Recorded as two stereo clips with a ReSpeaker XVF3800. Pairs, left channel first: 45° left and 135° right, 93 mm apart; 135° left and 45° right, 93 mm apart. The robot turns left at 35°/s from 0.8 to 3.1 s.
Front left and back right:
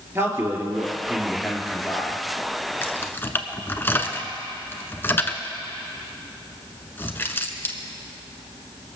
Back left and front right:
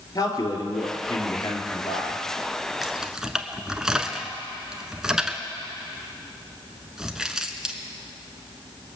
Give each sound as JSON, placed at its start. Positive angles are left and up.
{"t": 0.1, "sound": "a man speaking", "azimuth_deg": 170, "distance_m": 2.5}
{"t": 2.8, "sound": "keys jangling", "azimuth_deg": 40, "distance_m": 1.0}